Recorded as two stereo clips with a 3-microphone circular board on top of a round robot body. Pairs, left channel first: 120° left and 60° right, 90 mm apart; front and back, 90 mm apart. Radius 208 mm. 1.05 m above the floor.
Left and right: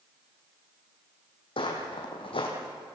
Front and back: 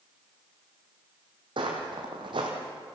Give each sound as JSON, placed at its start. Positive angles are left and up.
{"t": 1.6, "sound": "footsteps", "azimuth_deg": 145, "distance_m": 2.5}